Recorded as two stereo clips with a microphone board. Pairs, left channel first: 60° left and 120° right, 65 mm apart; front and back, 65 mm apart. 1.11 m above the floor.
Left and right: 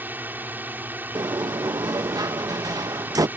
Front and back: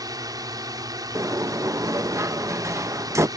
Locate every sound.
0.0 s a drone: straight behind
1.1 s a sliding door: 140° right